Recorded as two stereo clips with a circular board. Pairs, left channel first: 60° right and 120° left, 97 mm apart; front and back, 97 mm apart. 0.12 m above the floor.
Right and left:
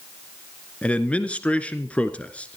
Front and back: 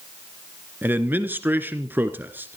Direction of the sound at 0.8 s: 125° right.